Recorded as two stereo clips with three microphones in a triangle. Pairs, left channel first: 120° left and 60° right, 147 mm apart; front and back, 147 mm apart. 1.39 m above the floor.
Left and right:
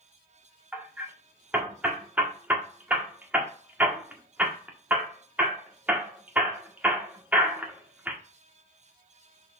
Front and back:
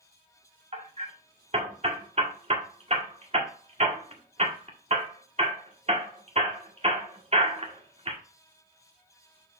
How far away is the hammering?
About 1.7 m.